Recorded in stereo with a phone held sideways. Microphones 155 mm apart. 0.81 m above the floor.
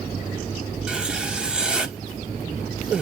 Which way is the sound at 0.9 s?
5° right (ahead or behind).